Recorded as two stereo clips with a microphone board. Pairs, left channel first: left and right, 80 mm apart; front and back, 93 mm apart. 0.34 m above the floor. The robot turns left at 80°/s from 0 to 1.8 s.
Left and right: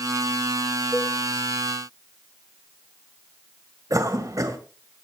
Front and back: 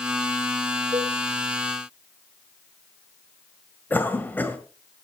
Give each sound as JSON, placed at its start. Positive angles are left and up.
{"t": 0.9, "sound": "a cowbell", "azimuth_deg": 155, "distance_m": 9.5}
{"t": 3.9, "sound": "a cough", "azimuth_deg": -60, "distance_m": 1.8}